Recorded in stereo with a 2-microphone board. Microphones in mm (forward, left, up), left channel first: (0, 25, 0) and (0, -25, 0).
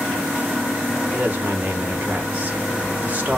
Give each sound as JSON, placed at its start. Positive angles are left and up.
{"t": 1.1, "sound": "a woman speaking", "side_deg": -35, "distance_m": 1.6}